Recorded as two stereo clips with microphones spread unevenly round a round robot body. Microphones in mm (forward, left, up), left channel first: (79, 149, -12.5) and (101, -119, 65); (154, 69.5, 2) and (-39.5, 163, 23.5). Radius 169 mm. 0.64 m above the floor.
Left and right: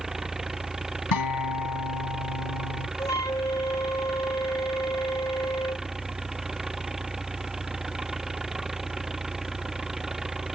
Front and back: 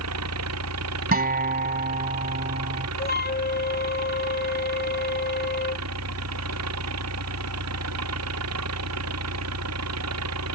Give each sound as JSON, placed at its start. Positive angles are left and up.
{"t": 0.0, "sound": "an engine running", "azimuth_deg": -175}
{"t": 1.1, "sound": "a guitar", "azimuth_deg": 105}
{"t": 3.0, "sound": "a flute", "azimuth_deg": 15}